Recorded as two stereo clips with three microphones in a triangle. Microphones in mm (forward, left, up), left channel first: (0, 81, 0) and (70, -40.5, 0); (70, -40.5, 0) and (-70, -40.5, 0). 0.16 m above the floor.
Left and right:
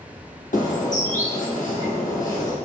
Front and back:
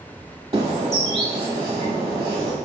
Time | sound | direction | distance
0.5 | a bird | 125° left | 1.1 m